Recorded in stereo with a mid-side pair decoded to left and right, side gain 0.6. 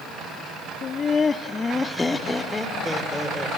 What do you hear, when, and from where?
0.8 s laughter: 45° left, 1.2 m; by 3.5 s 5° left, 4 m